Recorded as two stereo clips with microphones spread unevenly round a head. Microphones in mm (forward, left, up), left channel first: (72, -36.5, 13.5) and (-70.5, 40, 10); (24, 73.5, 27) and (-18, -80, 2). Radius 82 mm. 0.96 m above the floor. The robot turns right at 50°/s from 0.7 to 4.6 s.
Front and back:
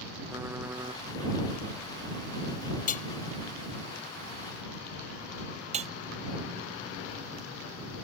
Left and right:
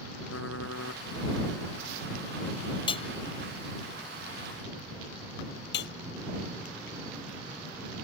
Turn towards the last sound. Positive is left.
turn(degrees=100)